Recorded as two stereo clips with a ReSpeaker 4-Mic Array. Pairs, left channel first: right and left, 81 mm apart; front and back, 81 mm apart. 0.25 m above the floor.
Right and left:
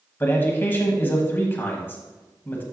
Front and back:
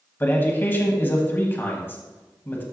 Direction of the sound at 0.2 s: 45° right.